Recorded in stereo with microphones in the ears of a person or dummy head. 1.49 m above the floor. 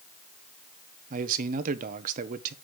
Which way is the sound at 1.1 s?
45° right (ahead or behind).